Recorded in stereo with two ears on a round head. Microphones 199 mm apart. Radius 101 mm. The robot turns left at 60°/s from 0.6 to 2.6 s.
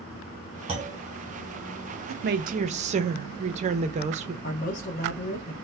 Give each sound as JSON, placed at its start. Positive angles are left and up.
{"t": 0.7, "sound": "a clunk", "side_deg": -25, "distance_m": 1.1}
{"t": 2.1, "sound": "a woman speaking", "azimuth_deg": -115, "distance_m": 0.5}
{"t": 4.4, "sound": "a man speaking", "side_deg": 35, "distance_m": 0.8}